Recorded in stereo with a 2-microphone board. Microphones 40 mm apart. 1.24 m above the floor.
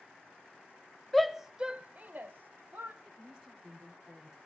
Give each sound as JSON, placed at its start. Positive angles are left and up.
{"t": 1.1, "sound": "a shout", "side_deg": 0, "distance_m": 0.7}
{"t": 3.0, "sound": "a woman speaking", "side_deg": -15, "distance_m": 3.5}